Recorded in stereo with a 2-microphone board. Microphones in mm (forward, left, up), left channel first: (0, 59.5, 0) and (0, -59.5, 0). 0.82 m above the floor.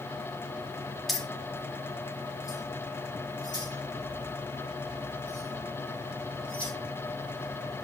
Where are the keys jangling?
Centre (ahead or behind), 1.0 m; by 6.7 s 45° left (ahead or behind), 5 m.